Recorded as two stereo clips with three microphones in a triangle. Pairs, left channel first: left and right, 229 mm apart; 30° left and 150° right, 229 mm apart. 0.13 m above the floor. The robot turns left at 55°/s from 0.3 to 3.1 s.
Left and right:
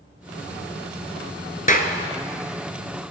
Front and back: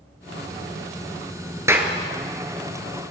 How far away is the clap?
About 1.3 m.